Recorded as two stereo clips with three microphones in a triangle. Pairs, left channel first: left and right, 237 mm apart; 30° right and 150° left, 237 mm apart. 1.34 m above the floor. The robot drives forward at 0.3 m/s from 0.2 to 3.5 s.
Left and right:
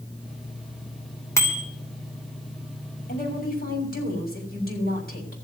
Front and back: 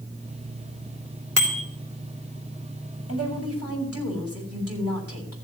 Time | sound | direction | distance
1.4 | a bicycle bell | 170° left | 3.5 m
3.1 | a woman speaking | 140° left | 6.5 m